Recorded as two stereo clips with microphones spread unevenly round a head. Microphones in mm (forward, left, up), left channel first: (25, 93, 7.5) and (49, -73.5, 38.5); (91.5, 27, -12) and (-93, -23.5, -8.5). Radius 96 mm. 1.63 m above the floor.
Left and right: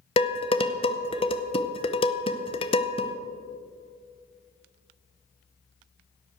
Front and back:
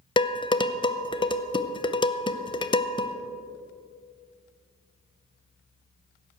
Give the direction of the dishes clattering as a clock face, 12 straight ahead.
10 o'clock.